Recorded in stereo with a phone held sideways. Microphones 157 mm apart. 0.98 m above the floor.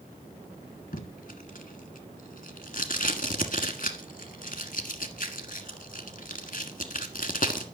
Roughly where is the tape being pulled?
Left.